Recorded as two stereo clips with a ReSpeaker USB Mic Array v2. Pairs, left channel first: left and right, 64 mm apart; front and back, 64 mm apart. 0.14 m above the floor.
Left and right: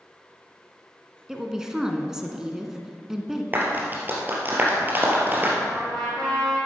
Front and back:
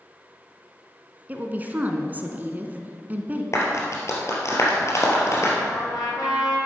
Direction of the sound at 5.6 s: 15° left.